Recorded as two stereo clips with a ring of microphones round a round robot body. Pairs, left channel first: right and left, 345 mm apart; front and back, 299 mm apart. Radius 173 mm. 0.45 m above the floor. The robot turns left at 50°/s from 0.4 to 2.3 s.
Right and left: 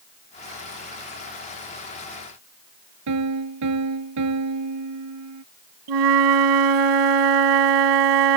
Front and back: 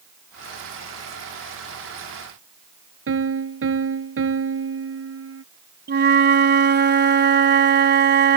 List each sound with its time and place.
3.1 s a piano: 135° left
5.9 s a flute: 125° left